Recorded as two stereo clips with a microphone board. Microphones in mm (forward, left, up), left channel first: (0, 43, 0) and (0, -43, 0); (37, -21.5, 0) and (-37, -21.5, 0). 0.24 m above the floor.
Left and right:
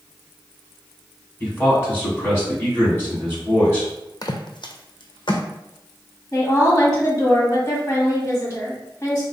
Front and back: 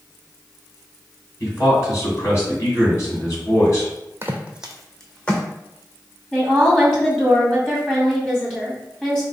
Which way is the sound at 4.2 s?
125° left.